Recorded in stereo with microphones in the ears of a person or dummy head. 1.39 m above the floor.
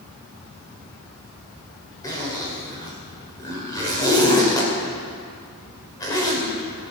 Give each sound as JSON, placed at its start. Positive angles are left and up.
{"t": 2.0, "sound": "a zipper", "side_deg": 20, "distance_m": 2.5}